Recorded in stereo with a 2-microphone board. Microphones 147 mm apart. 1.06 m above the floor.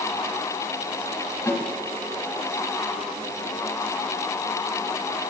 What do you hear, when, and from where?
1.5 s a snare drum: 20° left (ahead or behind), 3 m